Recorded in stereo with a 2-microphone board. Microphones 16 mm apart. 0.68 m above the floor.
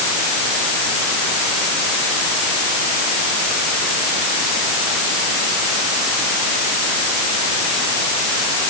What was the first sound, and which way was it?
Only background noise.